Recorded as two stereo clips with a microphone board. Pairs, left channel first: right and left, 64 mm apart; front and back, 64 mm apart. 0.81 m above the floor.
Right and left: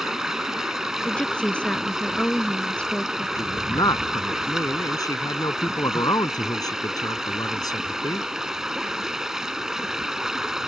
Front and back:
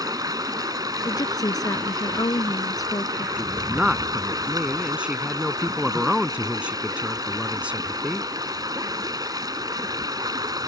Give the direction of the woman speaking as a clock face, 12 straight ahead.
1 o'clock.